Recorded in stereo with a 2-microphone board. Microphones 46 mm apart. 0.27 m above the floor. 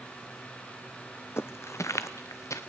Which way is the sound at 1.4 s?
60° left (ahead or behind).